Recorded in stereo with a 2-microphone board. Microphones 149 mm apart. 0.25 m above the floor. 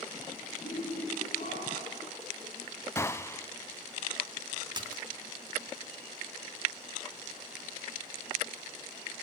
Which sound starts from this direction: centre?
A gunshot, at 3.0 s.